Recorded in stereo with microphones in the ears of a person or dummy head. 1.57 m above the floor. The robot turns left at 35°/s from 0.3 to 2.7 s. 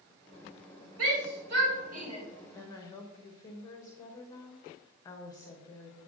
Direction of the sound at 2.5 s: 10° left (ahead or behind).